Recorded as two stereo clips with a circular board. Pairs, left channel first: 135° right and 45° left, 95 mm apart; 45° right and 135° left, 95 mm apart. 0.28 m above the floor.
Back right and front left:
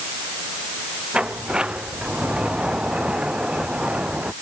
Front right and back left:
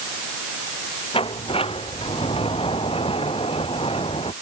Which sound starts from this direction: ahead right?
A sliding door, at 1.1 s.